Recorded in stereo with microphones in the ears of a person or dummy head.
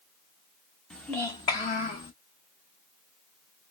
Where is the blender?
No blender in this recording.